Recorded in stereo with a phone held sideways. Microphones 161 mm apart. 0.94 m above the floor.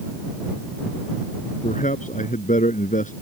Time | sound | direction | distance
1.6 | a man speaking | 55° left (ahead or behind) | ?